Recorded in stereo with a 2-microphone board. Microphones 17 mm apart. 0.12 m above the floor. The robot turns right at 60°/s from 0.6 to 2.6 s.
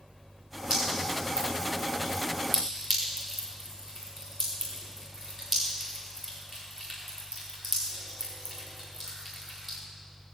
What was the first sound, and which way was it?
Dripping, 85° right.